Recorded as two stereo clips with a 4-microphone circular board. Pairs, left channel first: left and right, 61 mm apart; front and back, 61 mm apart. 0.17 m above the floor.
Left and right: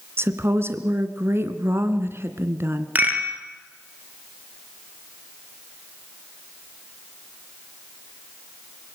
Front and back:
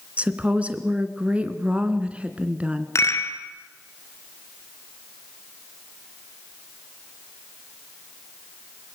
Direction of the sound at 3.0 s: 35° right.